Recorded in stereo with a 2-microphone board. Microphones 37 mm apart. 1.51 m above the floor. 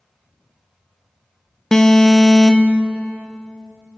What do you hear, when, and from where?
1.7 s an alarm: 15° left (ahead or behind), 1.2 m